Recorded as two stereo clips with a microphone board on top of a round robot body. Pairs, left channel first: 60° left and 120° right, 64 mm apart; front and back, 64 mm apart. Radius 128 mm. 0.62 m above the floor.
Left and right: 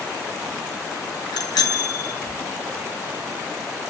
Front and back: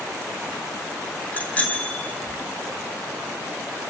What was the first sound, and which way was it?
A bicycle bell, 70° left.